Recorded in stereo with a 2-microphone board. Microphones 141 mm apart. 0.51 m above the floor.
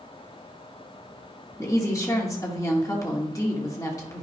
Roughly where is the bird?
No bird in this recording.